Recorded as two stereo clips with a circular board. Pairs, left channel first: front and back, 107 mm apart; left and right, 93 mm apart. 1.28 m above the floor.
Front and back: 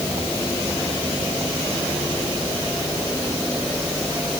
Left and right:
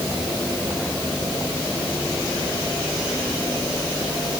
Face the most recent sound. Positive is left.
No sound to turn to.